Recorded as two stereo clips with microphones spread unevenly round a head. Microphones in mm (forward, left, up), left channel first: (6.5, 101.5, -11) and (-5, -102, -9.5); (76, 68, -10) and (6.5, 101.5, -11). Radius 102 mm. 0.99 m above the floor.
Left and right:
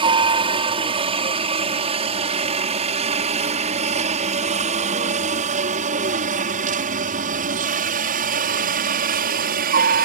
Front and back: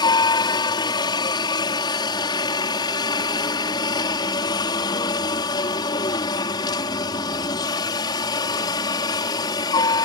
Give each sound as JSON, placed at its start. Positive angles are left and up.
{"t": 0.0, "sound": "a helicopter", "azimuth_deg": -30}